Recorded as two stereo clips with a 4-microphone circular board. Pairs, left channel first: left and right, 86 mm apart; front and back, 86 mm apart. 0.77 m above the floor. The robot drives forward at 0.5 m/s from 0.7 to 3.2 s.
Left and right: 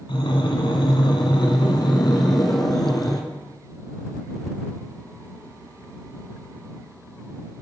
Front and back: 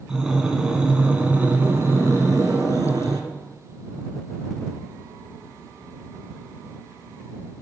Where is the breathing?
95° left, 1.4 m; by 3.2 s 135° left, 2 m.